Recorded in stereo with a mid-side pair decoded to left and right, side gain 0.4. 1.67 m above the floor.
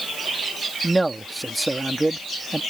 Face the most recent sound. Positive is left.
turn(degrees=-30)